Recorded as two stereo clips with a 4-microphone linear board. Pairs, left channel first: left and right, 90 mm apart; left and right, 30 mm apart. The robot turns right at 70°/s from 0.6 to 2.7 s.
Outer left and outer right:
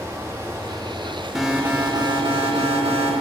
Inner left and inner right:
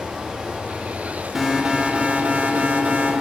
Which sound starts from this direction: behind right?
Running water, at 0.0 s.